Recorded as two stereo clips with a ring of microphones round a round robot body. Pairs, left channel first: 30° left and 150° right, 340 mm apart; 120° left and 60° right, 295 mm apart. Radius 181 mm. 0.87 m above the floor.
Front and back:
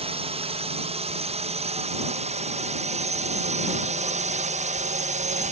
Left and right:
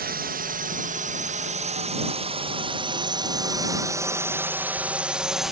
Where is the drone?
90° right; by 5.5 s 150° right.